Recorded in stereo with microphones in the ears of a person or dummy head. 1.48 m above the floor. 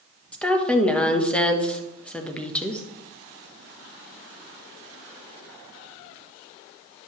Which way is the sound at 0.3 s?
15° left (ahead or behind).